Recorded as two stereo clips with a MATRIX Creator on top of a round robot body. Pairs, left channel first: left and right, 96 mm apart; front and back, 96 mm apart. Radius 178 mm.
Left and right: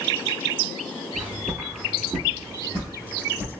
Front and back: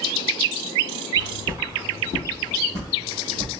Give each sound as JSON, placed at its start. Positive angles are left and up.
{"t": 1.1, "sound": "footsteps", "azimuth_deg": -30, "distance_m": 1.1}